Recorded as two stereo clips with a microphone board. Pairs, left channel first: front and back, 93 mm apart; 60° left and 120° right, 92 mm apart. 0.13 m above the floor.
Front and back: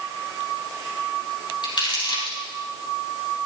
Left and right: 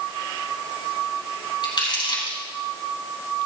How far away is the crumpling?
About 4.5 m.